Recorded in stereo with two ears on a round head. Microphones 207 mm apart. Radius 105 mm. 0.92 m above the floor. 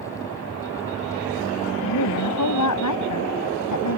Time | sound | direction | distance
1.8 | a woman speaking | 75° left (ahead or behind) | ?